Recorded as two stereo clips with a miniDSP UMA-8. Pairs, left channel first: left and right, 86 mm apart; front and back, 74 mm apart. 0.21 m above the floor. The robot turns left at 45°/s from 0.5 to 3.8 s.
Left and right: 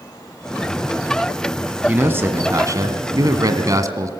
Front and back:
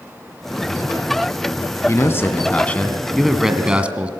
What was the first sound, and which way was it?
A man speaking, 25° right.